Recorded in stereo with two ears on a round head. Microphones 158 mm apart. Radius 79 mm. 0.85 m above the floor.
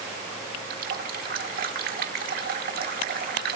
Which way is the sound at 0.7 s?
55° right (ahead or behind).